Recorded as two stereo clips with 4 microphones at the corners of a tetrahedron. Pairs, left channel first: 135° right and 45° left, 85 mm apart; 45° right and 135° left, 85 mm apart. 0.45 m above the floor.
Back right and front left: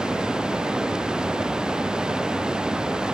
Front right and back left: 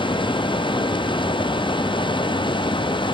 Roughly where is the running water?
Ahead right.